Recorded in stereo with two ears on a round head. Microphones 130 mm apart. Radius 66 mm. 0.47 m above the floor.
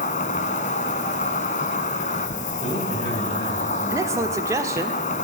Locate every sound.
0.0 s an insect: 50° left (ahead or behind), 1.0 m
2.6 s a man speaking: 30° left (ahead or behind), 4 m
3.9 s a man speaking: 20° right (ahead or behind), 1.1 m